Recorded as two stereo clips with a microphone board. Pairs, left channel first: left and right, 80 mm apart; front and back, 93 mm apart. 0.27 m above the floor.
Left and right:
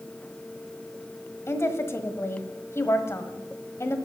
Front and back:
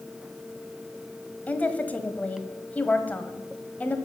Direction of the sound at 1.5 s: 60° left.